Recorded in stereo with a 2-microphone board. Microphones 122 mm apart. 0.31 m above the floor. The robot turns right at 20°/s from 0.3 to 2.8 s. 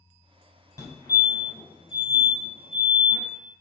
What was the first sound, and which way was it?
A fire alarm, 30° left (ahead or behind).